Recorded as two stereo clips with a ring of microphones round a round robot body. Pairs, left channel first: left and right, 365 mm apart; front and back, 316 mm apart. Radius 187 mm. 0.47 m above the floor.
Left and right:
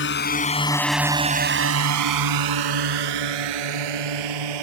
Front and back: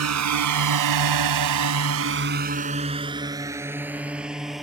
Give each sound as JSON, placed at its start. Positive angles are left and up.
{"t": 0.0, "sound": "a drone", "azimuth_deg": 150}